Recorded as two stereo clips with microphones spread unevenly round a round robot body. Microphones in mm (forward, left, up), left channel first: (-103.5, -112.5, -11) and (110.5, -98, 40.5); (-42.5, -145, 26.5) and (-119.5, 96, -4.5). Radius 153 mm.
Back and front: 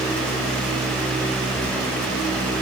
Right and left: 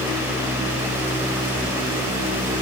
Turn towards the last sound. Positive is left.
No sound to turn to.